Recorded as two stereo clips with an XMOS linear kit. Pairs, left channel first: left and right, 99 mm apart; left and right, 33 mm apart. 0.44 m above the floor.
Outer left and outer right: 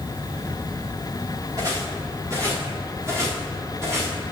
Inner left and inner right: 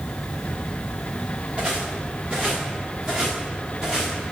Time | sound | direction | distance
1.6 | footsteps | 35° right (ahead or behind) | 3.5 m